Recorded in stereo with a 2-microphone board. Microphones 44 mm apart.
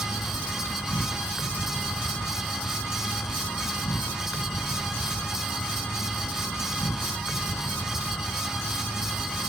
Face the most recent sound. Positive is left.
turn(degrees=75)  # may be behind; listen again after turning